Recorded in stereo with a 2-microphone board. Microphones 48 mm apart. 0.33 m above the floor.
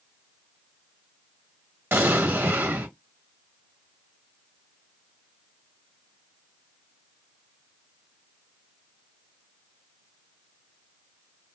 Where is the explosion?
50° right (ahead or behind), 1.2 m.